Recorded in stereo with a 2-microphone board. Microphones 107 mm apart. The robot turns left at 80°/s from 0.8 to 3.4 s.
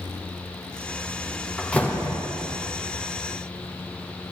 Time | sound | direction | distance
1.6 | a door slam | 175° left | 1.0 m